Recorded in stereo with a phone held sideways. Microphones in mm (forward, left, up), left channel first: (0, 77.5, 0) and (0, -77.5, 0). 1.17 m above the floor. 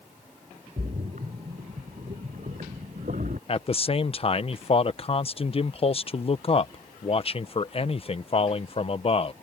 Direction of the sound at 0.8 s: 60° right (ahead or behind).